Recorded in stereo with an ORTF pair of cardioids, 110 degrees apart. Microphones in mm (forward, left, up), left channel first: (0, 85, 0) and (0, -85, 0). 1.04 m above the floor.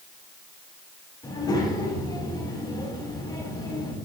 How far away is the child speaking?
About 5.5 m.